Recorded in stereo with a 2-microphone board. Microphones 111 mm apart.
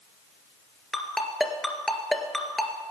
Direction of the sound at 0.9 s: 5° left (ahead or behind).